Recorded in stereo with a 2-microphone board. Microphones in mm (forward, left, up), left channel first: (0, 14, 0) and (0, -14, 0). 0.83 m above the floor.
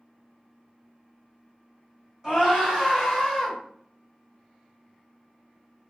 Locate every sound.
2.2 s a scream: 30° right (ahead or behind), 2.0 m; by 3.6 s centre (ahead or behind), 1.7 m